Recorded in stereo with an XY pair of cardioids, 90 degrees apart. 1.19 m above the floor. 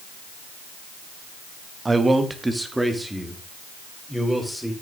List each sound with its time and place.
1.9 s a man speaking: 25° right, 1.6 m; by 4.7 s straight ahead, 4 m